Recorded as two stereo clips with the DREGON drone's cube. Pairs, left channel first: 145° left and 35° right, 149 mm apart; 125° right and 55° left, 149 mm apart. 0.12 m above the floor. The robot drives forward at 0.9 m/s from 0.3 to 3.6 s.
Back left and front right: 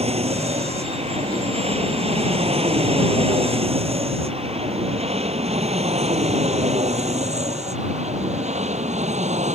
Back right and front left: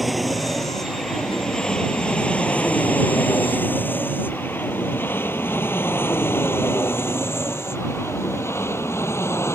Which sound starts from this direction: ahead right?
An aircraft, at 0.0 s.